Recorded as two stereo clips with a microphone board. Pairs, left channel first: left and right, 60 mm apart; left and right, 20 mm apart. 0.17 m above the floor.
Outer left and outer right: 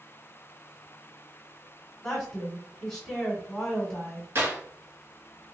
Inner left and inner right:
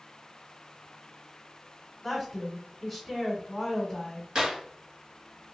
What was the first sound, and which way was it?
A woman speaking, 10° left (ahead or behind).